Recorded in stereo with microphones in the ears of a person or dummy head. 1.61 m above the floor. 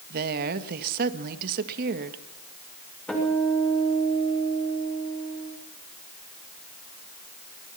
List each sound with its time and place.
0.1 s a woman speaking: 55° right (ahead or behind), 1.8 m
3.1 s a guitar: 10° left (ahead or behind), 6.5 m